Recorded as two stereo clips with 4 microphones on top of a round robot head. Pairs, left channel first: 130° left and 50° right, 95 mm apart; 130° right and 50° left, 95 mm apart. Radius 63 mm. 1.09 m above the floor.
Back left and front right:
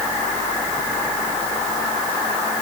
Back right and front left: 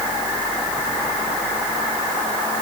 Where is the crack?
I don't hear a crack.